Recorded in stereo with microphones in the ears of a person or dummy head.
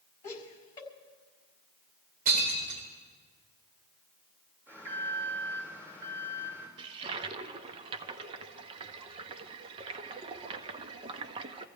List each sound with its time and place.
0.2 s laughter: 25° left (ahead or behind), 5.5 m
2.2 s breaking glass: 50° right (ahead or behind), 4.5 m
4.7 s an alarm: 15° right (ahead or behind), 6 m
6.8 s a toilet flushing: 35° right (ahead or behind), 0.9 m